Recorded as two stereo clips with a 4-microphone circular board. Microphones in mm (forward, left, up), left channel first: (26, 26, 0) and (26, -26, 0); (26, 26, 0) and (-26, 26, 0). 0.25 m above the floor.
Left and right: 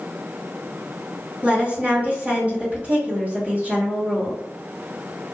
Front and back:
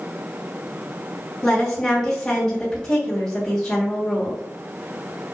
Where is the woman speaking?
70° right, 1.7 m.